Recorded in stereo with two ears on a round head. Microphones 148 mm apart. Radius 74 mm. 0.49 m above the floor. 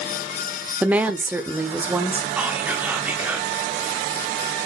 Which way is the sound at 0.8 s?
10° right (ahead or behind).